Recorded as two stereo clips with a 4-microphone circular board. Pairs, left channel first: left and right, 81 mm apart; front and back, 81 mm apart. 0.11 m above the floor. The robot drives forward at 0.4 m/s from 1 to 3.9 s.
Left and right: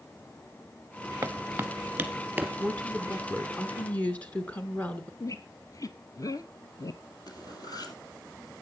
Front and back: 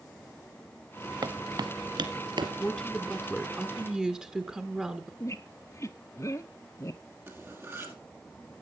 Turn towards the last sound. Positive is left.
turn(degrees=120)